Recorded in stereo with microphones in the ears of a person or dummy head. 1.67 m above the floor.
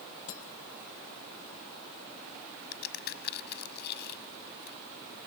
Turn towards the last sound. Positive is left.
turn(degrees=60)  # may be behind; listen again after turning